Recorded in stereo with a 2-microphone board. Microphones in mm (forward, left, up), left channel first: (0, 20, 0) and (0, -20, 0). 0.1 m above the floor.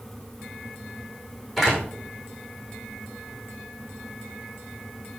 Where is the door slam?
Centre (ahead or behind), 6 m.